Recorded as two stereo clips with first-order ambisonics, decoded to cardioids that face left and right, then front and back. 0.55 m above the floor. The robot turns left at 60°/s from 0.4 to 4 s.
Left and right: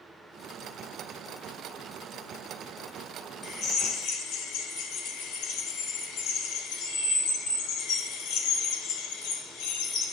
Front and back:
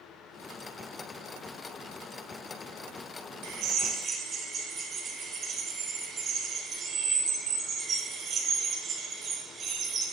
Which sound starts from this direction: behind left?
A drill, at 3.4 s.